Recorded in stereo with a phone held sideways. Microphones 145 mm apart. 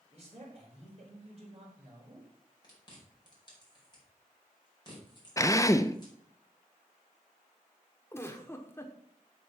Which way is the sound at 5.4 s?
20° left (ahead or behind).